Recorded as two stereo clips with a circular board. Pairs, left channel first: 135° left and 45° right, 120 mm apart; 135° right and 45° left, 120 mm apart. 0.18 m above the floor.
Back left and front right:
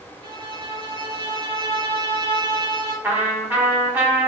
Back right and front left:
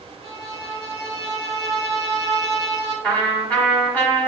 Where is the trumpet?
85° right, 1.3 m.